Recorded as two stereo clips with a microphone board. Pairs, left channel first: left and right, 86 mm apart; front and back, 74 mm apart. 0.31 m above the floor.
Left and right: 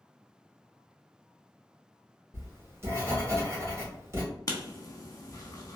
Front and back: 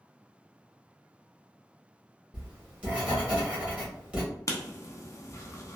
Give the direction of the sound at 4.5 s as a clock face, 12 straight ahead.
10 o'clock.